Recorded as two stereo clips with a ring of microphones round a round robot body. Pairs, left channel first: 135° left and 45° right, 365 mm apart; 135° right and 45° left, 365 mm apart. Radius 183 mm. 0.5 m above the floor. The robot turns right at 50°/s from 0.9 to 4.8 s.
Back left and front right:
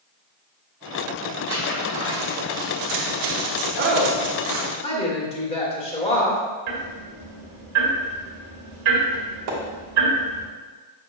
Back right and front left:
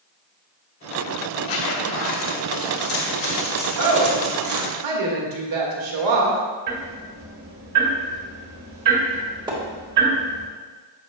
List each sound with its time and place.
1.5 s a zipper: 150° right, 1.6 m; by 4.7 s 10° left, 1.6 m
3.8 s a woman speaking: 10° left, 1.5 m; by 6.4 s 65° left, 1.5 m
6.7 s ticking: 5° left, 2 m
9.5 s a splash: 30° right, 1.5 m